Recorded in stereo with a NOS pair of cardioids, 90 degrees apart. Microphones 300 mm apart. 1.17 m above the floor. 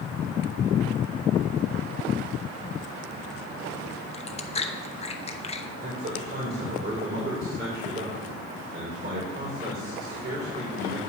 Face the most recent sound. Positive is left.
turn(degrees=-35)